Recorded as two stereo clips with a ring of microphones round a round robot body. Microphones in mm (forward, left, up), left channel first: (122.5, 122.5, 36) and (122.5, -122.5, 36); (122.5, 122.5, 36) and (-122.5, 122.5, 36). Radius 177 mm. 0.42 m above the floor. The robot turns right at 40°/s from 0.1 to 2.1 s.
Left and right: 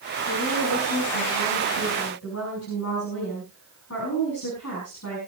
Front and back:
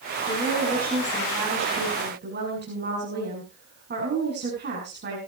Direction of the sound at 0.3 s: 60° left.